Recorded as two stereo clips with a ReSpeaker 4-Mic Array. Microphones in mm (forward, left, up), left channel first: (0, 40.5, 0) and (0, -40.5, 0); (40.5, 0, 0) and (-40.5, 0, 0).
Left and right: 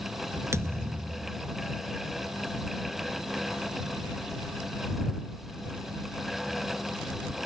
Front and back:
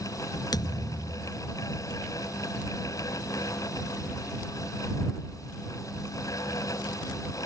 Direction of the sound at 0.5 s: 35° right.